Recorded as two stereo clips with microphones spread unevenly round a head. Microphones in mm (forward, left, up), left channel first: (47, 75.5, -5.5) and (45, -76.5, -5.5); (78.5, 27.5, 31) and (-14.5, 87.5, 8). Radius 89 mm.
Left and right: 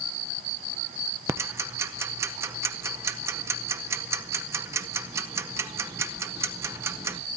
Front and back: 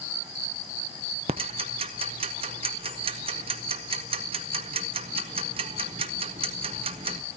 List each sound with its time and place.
1.3 s ticking: 160° right, 0.6 m